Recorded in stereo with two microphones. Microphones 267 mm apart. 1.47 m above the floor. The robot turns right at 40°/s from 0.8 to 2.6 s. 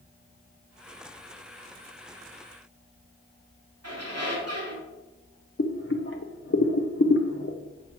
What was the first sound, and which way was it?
A squeak, 70° right (ahead or behind).